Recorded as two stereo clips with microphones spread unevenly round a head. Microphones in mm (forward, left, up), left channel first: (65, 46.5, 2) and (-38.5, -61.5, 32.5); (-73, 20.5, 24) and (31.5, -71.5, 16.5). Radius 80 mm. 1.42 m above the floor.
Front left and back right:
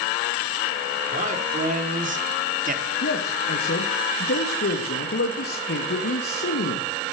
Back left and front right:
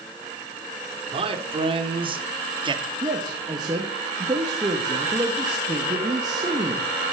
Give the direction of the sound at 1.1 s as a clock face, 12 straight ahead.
3 o'clock.